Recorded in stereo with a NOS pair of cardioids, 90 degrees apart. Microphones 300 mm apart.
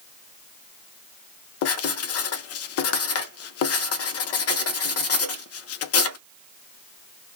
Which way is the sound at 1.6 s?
60° left.